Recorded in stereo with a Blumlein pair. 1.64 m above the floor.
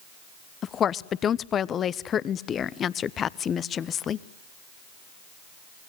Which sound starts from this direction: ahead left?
A woman speaking, at 0.6 s.